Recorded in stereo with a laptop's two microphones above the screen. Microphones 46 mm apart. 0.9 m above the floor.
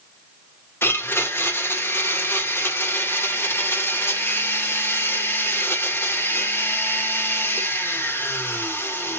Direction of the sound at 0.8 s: 55° left (ahead or behind).